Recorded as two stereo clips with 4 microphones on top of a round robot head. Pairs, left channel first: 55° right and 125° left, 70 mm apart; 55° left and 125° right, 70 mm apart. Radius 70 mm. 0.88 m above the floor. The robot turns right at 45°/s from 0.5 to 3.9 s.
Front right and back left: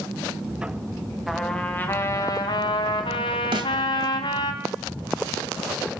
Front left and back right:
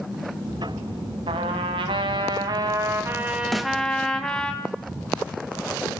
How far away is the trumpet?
About 2 m.